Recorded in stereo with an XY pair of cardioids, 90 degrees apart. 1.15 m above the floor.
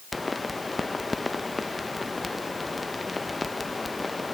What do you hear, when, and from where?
0.1 s a pop: 20° left, 0.6 m